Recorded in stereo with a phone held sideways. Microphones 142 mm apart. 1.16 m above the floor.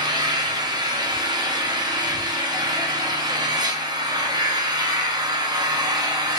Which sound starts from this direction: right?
An engine running, at 0.0 s.